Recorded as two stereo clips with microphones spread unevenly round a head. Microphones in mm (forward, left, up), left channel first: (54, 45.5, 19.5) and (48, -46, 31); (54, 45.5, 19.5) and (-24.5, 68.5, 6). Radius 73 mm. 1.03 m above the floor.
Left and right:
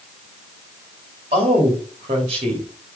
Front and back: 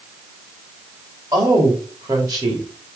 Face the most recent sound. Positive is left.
turn(degrees=-135)